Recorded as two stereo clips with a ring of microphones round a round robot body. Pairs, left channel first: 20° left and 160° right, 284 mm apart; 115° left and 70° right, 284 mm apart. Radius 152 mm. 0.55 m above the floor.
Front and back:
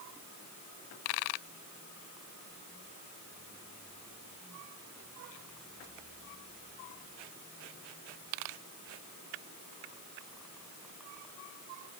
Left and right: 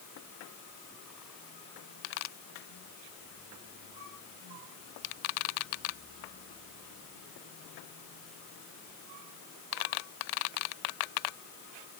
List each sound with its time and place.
Only background noise.